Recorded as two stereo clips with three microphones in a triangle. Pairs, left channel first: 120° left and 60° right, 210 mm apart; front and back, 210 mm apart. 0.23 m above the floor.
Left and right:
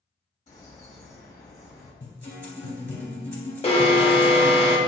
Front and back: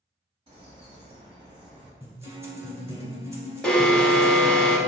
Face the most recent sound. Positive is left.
turn(degrees=85)